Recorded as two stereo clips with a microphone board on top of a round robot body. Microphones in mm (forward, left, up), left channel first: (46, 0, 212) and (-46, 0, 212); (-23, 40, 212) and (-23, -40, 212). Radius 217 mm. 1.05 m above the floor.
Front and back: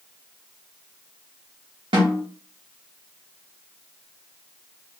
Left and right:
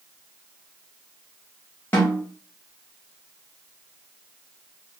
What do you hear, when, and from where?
1.9 s a snare drum: 150° left, 0.6 m